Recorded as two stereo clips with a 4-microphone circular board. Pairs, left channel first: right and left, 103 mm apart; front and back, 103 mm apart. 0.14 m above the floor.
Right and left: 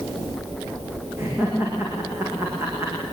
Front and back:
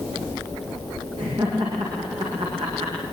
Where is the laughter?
155° left, 8 m.